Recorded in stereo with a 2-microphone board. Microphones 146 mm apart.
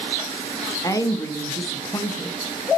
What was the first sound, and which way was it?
A woman speaking, 25° left (ahead or behind).